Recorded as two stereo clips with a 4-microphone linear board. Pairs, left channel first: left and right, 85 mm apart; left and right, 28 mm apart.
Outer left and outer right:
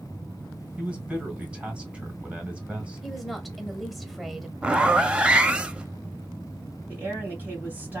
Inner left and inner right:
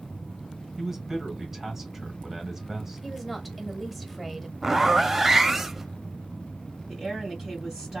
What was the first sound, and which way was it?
A man speaking, 15° right (ahead or behind).